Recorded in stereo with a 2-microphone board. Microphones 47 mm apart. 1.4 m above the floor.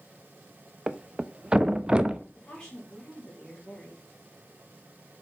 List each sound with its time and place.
0.9 s a thud: 20° right (ahead or behind), 0.7 m
2.4 s a woman speaking: 10° left (ahead or behind), 4.5 m